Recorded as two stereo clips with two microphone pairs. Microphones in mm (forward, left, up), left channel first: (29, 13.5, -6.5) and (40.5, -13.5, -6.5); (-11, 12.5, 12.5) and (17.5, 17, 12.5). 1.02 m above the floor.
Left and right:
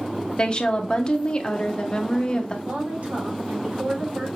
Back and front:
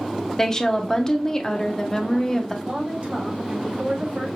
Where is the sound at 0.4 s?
140° left, 0.7 m.